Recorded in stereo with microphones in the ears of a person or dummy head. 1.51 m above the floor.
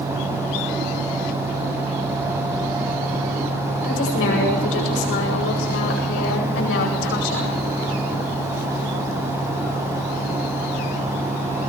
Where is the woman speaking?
85° left, 8.5 m; by 7.6 s 80° left, 9 m.